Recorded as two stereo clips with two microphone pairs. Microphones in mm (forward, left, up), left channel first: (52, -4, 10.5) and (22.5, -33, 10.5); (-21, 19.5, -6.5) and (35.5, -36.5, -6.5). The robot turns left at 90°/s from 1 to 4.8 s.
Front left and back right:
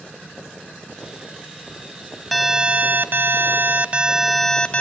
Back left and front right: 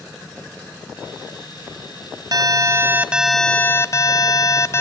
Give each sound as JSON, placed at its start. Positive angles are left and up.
{"t": 2.3, "sound": "an alarm", "azimuth_deg": -45, "distance_m": 0.7}